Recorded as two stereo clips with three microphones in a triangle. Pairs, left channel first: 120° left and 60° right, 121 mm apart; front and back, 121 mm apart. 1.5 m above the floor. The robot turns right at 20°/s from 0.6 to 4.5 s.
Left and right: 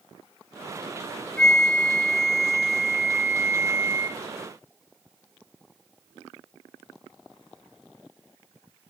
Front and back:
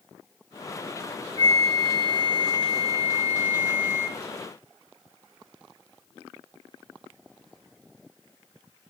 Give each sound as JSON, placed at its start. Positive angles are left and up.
{"t": 1.4, "sound": "a flute", "azimuth_deg": -155, "distance_m": 0.8}